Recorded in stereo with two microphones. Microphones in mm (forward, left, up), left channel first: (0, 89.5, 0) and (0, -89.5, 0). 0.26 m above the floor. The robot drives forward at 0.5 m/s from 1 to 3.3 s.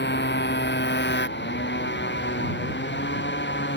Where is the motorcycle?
75° left (ahead or behind); by 3.8 s 85° left.